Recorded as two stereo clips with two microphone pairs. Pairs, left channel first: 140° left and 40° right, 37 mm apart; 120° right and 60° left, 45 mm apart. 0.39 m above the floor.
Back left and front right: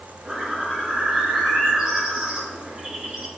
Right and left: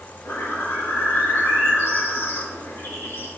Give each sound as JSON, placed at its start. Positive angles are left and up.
{"t": 0.2, "sound": "a bird", "azimuth_deg": -110, "distance_m": 4.5}